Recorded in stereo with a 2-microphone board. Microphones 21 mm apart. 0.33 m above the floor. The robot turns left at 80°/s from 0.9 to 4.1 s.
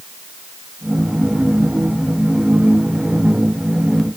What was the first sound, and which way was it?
Only background noise.